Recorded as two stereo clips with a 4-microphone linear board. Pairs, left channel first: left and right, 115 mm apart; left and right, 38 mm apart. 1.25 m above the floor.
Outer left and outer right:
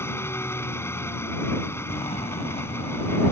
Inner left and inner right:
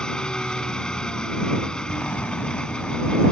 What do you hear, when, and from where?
0.0 s an engine running: 20° left (ahead or behind)
1.9 s an explosion: 60° left (ahead or behind)